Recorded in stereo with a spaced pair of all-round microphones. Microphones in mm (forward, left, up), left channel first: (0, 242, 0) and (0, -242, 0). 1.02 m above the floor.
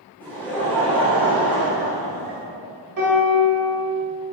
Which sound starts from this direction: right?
A piano, at 3.0 s.